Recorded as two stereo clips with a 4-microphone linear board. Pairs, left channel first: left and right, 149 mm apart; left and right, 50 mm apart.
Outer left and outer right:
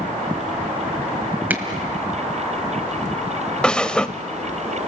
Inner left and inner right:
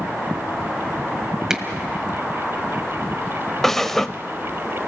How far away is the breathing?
About 0.6 m.